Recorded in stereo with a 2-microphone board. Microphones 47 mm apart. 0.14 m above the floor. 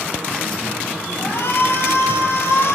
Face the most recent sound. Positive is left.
turn(degrees=65)  # may be behind; listen again after turning